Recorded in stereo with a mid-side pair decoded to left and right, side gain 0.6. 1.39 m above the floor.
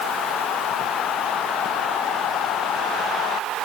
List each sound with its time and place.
Only background noise.